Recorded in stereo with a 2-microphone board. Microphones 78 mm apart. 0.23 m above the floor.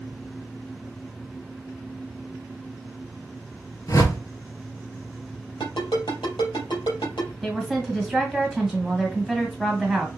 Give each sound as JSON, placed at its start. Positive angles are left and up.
{"t": 3.9, "sound": "a whoosh", "side_deg": 50, "distance_m": 1.1}
{"t": 5.6, "sound": "a ringtone", "side_deg": 75, "distance_m": 3.0}
{"t": 7.4, "sound": "a woman speaking", "side_deg": -5, "distance_m": 1.7}